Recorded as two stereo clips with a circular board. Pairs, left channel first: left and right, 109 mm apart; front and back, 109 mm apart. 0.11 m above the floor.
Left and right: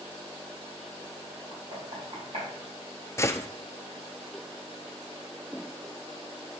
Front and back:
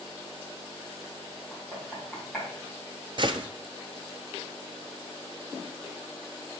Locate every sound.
1.5 s knocking: 90° right, 4.5 m
3.2 s a gunshot: 150° left, 0.6 m